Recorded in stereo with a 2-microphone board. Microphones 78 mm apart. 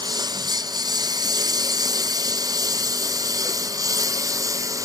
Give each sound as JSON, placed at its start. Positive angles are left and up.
{"t": 0.0, "sound": "a lawn mower", "side_deg": -55}